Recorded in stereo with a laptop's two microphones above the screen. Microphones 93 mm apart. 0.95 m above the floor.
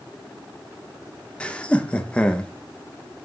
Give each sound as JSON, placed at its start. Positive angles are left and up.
{"t": 1.4, "sound": "laughter", "side_deg": 15, "distance_m": 0.6}